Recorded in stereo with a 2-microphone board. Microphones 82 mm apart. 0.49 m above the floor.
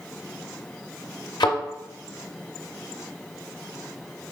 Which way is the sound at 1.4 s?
70° left (ahead or behind).